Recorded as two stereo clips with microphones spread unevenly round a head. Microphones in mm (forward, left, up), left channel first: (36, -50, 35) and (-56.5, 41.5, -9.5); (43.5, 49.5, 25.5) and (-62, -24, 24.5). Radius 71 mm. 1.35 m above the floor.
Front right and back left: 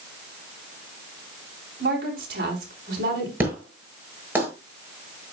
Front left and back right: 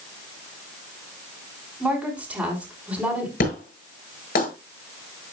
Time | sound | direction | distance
1.8 | a woman speaking | 135° left | 4.5 m
3.4 | an explosion | 55° left | 7.5 m